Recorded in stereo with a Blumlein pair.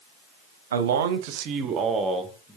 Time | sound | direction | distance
0.7 | a man speaking | 65° right | 0.8 m